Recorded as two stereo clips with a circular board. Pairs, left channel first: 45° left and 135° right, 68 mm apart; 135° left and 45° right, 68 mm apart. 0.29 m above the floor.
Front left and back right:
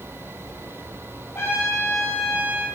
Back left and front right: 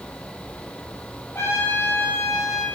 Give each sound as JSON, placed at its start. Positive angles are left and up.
{"t": 1.4, "sound": "a trumpet", "azimuth_deg": 95, "distance_m": 5.5}